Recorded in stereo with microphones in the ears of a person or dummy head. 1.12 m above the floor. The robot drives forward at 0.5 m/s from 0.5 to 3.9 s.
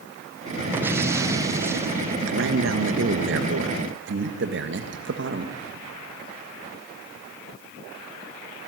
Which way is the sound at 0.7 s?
15° right (ahead or behind).